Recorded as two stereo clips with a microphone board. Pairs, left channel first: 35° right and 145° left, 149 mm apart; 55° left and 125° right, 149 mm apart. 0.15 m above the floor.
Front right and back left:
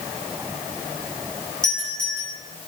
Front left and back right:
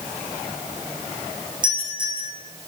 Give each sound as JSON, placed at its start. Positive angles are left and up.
{"t": 1.6, "sound": "a doorbell", "azimuth_deg": -65, "distance_m": 7.0}